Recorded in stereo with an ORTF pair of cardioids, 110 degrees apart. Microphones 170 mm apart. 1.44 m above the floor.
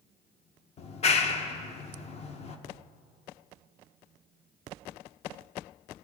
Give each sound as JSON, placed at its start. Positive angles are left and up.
{"t": 0.8, "sound": "a clap", "azimuth_deg": 40, "distance_m": 0.9}